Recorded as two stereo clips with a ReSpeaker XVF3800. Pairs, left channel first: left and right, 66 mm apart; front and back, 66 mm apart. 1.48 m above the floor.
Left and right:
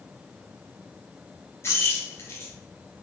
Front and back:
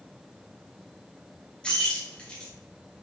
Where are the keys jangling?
70° left, 0.7 m.